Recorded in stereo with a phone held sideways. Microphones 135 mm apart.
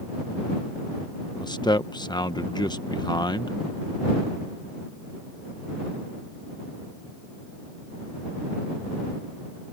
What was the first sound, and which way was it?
A man speaking, 35° left (ahead or behind).